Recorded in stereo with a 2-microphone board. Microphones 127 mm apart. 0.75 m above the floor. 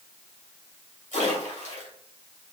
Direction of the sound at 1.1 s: 75° left (ahead or behind).